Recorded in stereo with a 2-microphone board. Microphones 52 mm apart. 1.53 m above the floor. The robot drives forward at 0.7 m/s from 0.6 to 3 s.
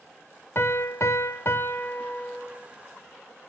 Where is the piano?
50° left (ahead or behind), 0.7 m; by 2.7 s 25° left (ahead or behind), 1.3 m.